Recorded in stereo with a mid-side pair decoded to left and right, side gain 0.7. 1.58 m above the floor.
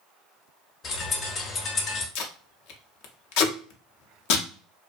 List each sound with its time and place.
0.8 s a bird: 40° left, 0.9 m
2.1 s tape being pulled: 70° left, 0.6 m